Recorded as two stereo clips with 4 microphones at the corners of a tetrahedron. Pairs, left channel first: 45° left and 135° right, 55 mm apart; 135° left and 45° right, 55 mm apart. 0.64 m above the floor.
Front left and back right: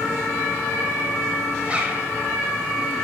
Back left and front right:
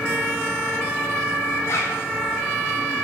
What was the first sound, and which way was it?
A zipper, 160° left.